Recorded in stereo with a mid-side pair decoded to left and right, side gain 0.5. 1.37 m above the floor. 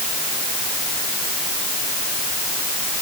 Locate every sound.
Only background noise.